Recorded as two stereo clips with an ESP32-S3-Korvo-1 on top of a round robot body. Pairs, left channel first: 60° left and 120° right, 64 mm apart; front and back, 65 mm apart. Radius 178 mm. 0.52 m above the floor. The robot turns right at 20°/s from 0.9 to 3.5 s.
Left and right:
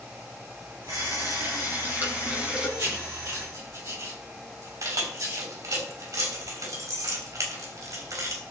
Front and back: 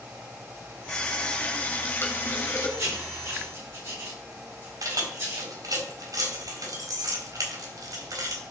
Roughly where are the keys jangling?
Behind right.